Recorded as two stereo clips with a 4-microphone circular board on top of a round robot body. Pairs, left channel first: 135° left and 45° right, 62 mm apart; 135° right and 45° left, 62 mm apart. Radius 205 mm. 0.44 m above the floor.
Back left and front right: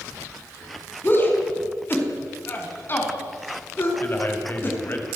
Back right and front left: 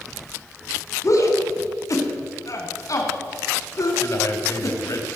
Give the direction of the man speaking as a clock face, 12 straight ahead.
6 o'clock.